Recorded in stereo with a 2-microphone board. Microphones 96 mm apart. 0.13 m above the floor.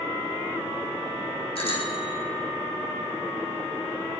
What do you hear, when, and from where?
1.6 s a bicycle bell: 80° left, 4.5 m